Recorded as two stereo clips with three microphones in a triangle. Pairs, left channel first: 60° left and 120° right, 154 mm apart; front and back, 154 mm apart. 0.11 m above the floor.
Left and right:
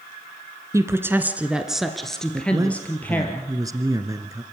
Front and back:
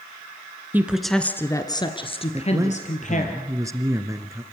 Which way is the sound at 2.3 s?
145° right.